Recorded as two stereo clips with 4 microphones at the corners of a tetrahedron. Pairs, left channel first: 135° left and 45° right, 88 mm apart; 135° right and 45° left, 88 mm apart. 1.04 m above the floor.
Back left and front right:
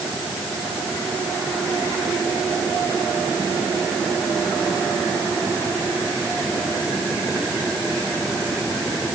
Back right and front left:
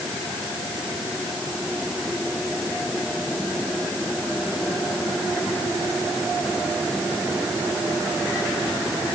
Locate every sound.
Only background noise.